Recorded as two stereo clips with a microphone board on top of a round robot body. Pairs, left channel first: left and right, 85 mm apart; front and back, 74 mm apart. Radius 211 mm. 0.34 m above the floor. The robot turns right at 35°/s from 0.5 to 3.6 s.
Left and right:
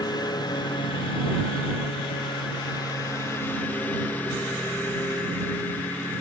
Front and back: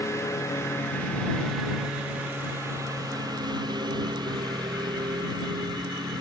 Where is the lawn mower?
50° left; by 6.2 s 160° left.